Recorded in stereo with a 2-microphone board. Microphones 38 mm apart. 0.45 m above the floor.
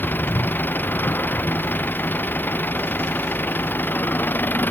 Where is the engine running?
60° left (ahead or behind).